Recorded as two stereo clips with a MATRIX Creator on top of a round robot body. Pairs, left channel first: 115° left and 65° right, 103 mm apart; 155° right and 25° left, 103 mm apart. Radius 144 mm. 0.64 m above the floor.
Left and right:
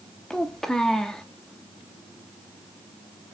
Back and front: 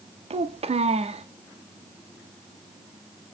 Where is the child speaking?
25° left, 0.9 m.